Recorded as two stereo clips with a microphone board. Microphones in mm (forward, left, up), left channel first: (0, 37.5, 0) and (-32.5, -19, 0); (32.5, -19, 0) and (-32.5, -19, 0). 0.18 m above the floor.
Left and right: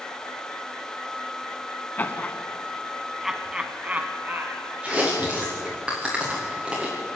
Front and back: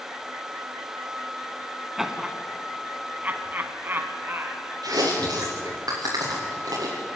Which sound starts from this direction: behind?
Chewing, at 4.8 s.